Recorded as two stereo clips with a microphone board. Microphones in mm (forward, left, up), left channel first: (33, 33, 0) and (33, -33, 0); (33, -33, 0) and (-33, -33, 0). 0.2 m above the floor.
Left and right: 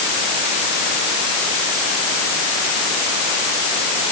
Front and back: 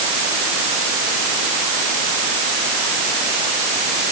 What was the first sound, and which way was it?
Only background noise.